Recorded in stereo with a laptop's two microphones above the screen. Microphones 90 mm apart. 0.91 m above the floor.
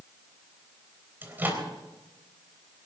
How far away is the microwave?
About 3.5 m.